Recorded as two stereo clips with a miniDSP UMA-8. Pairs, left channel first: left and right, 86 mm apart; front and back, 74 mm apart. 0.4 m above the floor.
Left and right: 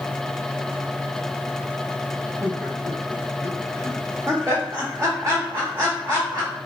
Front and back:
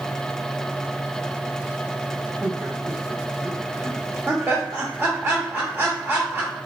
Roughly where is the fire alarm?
I don't hear a fire alarm.